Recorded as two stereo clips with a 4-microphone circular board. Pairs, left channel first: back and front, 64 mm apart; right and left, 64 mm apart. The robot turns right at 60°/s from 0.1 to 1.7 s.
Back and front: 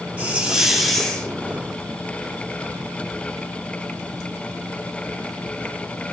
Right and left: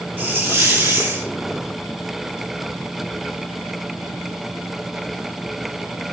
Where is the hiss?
50° left, 0.9 m; by 1.3 s 120° left, 0.9 m.